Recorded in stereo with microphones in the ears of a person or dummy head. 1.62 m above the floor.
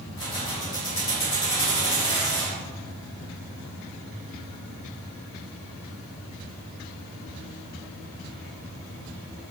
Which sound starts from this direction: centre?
Keys jangling, at 0.2 s.